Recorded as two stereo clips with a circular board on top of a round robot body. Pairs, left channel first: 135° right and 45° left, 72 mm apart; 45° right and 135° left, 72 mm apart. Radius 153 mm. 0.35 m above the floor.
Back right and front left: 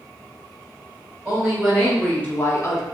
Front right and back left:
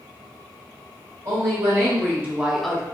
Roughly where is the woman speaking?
Behind left.